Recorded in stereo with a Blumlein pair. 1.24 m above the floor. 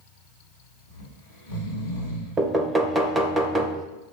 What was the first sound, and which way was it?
Snoring, 70° left.